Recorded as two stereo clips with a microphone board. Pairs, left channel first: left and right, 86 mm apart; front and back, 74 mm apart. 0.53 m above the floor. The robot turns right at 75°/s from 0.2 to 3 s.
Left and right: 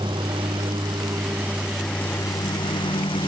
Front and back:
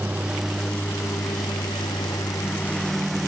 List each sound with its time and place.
0.0 s a lawn mower: 110° right; by 3.3 s 90° left